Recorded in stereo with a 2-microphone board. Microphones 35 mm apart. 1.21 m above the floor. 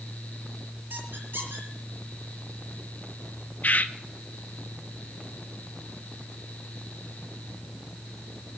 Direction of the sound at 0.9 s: 80° right.